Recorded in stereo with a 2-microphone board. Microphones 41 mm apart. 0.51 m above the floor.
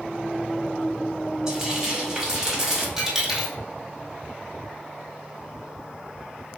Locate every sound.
1.5 s frying: 15° right (ahead or behind), 1.4 m
3.0 s a dropped coin: 10° right (ahead or behind), 1.7 m